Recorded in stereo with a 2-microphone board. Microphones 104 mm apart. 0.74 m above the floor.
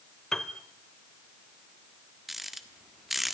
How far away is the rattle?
About 1.4 m.